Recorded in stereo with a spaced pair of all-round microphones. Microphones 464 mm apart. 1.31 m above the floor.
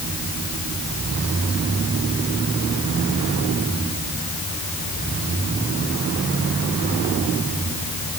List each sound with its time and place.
Only background noise.